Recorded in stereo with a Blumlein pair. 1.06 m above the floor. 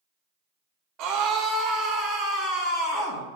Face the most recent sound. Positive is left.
turn(degrees=40)